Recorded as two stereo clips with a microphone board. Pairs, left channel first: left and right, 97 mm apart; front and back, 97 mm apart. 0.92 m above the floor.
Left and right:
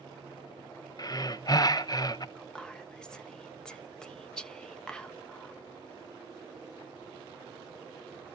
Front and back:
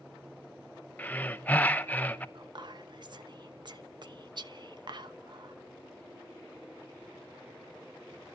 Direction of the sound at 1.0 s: 65° left.